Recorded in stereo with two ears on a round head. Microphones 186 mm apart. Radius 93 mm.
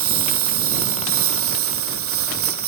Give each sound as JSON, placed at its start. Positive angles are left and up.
{"t": 0.0, "sound": "a lawn mower", "side_deg": -75}